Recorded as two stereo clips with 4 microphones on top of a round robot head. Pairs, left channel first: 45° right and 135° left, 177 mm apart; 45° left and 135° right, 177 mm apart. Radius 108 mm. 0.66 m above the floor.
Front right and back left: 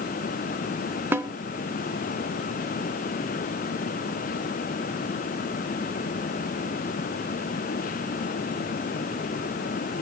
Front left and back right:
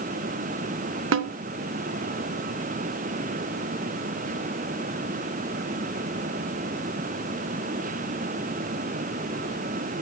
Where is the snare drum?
150° right, 0.7 m.